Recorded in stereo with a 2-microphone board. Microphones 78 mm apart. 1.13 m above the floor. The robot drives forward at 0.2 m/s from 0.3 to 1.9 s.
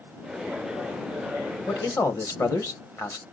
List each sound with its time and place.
1.7 s a man speaking: 40° left (ahead or behind), 1.1 m